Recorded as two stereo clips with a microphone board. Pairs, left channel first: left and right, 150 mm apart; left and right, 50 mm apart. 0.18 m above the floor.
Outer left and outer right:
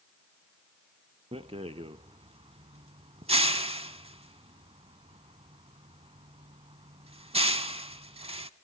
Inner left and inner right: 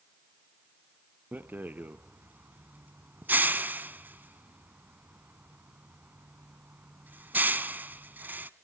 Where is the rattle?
40° right (ahead or behind), 0.5 m.